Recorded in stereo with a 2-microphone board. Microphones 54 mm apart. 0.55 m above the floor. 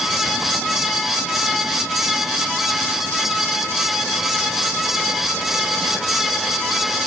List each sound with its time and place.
Only background noise.